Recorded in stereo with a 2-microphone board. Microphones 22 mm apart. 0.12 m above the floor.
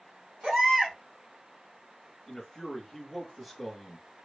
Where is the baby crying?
25° right (ahead or behind), 1.7 m.